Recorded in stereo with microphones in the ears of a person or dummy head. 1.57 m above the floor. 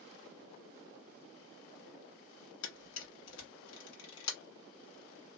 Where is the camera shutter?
70° left (ahead or behind), 1.3 m.